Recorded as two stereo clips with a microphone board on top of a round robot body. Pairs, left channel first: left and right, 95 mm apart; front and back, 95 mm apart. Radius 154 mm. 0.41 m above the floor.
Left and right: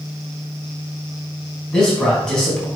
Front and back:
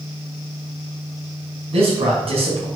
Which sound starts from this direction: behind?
A man speaking, at 1.7 s.